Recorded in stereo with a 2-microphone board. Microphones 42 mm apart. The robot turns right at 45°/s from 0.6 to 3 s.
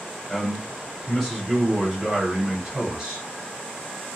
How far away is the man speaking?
About 1.2 m.